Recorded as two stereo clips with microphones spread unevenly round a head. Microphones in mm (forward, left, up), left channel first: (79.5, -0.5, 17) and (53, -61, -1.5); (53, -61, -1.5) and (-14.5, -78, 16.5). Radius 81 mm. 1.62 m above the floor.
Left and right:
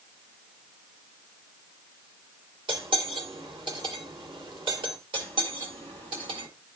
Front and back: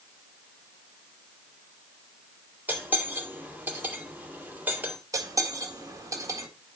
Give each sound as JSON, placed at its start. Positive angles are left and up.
{"t": 2.7, "sound": "cutlery clinking", "azimuth_deg": -110, "distance_m": 2.0}
{"t": 5.1, "sound": "cutlery clinking", "azimuth_deg": -135, "distance_m": 1.7}